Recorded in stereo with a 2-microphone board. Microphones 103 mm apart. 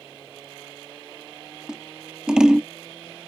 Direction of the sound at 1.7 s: 5° right (ahead or behind).